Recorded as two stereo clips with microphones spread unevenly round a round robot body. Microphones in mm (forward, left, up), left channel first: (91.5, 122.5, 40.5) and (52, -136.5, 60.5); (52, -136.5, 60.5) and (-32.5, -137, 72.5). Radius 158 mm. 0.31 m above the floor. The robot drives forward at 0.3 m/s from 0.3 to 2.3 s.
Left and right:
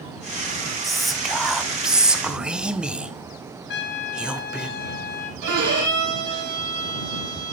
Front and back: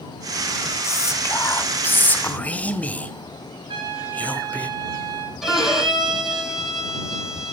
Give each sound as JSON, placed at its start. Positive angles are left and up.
{"t": 0.8, "sound": "whispering", "azimuth_deg": -5, "distance_m": 1.2}
{"t": 3.7, "sound": "a trumpet", "azimuth_deg": 135, "distance_m": 0.8}
{"t": 5.4, "sound": "a violin", "azimuth_deg": -95, "distance_m": 5.0}